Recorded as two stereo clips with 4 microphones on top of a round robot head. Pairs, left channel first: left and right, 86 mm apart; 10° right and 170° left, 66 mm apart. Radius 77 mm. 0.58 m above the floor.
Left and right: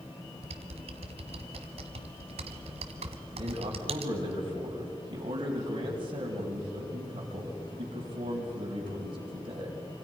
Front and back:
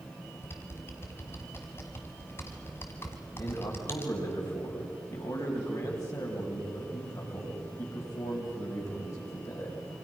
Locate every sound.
0.4 s typing on a keyboard: 75° right, 1.1 m
3.3 s a man speaking: 55° right, 4 m